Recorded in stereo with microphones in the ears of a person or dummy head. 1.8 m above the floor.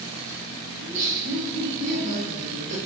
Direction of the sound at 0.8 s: 40° right (ahead or behind).